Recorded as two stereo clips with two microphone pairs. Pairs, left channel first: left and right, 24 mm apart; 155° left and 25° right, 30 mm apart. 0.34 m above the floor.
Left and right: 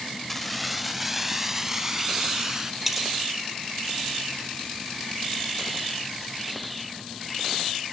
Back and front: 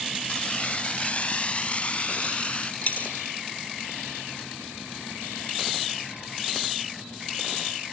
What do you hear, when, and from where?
0.3 s keys jangling: 165° left, 0.7 m; by 2.7 s 160° right, 2.5 m
2.8 s a dropped coin: 170° right, 2 m